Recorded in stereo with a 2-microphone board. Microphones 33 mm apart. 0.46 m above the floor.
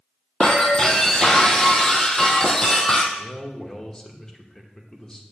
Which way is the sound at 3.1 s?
20° left (ahead or behind).